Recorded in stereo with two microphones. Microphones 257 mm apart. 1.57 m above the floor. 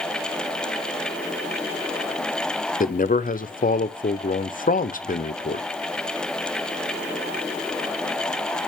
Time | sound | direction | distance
2.8 | a man speaking | 30° left (ahead or behind) | 0.6 m